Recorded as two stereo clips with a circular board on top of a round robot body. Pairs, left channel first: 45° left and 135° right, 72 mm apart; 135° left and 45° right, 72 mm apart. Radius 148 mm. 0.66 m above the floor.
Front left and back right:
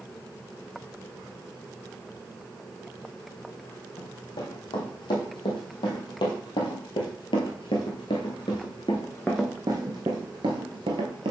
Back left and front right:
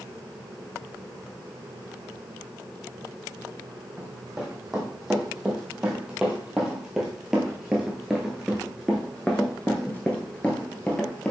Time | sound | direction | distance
4.0 | running footsteps | 35° left | 3 m